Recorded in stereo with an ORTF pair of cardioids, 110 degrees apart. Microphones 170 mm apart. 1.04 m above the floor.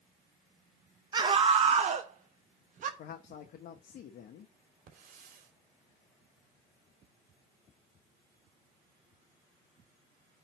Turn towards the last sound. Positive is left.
turn(degrees=-55)